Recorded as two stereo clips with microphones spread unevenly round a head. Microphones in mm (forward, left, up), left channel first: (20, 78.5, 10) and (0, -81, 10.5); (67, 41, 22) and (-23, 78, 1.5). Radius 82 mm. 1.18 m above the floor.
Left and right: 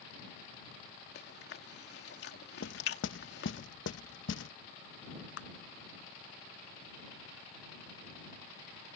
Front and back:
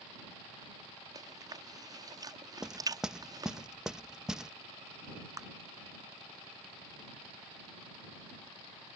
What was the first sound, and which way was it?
Chewing, 110° left.